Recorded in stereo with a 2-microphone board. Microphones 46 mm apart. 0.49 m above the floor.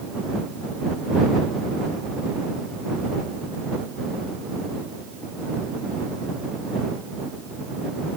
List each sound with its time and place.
Only background noise.